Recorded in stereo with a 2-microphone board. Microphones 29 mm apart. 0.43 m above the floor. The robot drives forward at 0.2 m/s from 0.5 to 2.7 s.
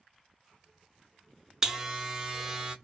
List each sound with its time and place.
1.6 s a buzzer: 20° right (ahead or behind), 0.6 m